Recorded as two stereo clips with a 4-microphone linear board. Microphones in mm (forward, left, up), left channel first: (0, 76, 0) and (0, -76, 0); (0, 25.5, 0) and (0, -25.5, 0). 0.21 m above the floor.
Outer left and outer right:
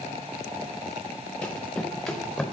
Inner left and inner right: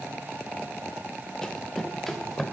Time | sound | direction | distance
1.4 | running footsteps | 10° left (ahead or behind) | 1.0 m